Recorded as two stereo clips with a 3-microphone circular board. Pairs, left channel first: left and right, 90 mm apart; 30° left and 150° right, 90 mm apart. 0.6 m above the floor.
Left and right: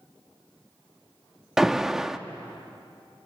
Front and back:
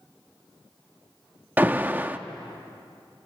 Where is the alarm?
165° right, 0.6 m.